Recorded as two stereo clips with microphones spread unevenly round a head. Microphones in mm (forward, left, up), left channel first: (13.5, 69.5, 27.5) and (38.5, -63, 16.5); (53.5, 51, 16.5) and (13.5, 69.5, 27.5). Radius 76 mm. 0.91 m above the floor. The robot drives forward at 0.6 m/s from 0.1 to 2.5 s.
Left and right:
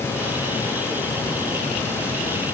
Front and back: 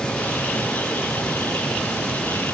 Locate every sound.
Only background noise.